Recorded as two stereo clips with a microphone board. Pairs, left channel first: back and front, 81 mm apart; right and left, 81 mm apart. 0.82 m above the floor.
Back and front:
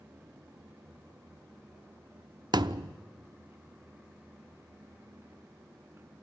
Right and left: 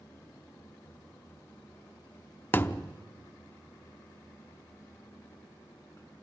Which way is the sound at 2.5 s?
25° right.